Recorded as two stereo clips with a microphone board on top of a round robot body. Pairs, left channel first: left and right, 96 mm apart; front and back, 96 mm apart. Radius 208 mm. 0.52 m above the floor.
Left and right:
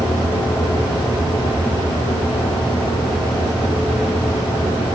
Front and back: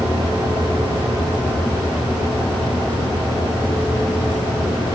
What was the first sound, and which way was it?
Only background noise.